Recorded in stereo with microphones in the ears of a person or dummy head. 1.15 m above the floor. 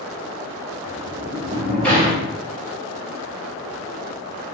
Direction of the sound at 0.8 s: 5° left (ahead or behind).